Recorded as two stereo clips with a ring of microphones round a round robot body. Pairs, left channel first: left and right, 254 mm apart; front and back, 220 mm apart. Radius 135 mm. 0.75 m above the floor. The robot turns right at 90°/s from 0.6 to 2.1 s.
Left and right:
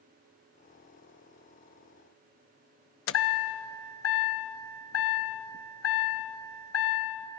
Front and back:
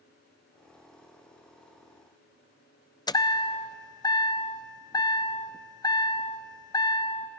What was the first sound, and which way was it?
A chime, 70° left.